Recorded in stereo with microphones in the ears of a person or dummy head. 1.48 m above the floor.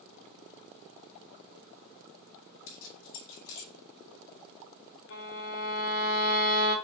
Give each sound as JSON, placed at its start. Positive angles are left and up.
{"t": 2.7, "sound": "keys jangling", "side_deg": 70, "distance_m": 2.5}
{"t": 5.1, "sound": "a violin", "side_deg": 65, "distance_m": 3.0}